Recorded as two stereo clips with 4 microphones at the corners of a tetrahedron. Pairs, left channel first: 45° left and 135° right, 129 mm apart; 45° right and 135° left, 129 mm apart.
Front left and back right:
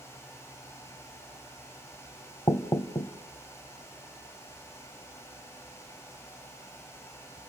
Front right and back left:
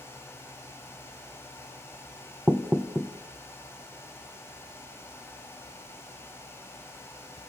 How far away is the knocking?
About 0.8 m.